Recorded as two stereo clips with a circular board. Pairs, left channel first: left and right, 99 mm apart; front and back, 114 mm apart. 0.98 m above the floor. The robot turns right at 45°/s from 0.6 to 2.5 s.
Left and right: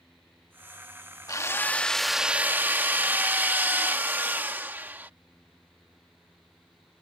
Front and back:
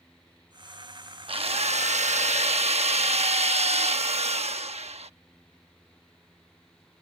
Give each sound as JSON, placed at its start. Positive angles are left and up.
{"t": 1.3, "sound": "a drill", "azimuth_deg": 145}